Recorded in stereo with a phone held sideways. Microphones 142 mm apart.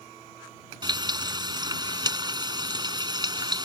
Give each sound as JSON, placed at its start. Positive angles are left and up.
{"t": 0.8, "sound": "frying", "side_deg": -30}